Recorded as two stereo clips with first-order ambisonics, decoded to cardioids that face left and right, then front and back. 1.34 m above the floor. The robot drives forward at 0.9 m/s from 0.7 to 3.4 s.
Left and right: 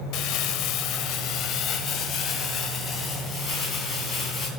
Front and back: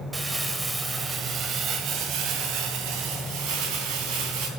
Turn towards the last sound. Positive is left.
turn(degrees=155)